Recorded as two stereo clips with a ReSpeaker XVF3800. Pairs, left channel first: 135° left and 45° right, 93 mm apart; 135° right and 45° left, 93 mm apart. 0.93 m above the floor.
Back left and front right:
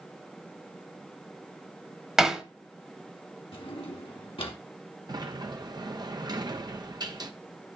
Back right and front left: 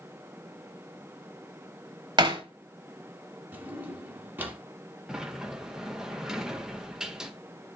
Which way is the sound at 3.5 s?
115° left.